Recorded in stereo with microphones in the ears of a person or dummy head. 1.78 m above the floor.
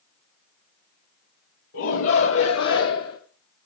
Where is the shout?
65° left (ahead or behind), 1.3 m; by 3.2 s 75° left (ahead or behind), 1.3 m.